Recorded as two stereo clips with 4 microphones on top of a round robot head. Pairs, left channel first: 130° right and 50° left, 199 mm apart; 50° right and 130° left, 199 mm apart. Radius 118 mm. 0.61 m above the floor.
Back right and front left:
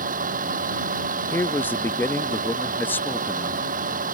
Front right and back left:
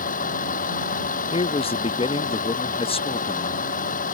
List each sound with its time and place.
0.0 s a vehicle: straight ahead
1.3 s a man speaking: 60° right